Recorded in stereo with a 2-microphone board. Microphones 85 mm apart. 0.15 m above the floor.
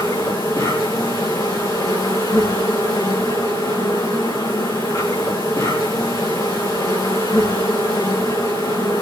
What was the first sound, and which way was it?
An insect, 40° left (ahead or behind).